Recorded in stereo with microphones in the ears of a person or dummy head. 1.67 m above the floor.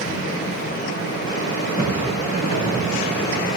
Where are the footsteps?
50° left (ahead or behind), 5.5 m; by 3.5 s 25° left (ahead or behind), 5 m.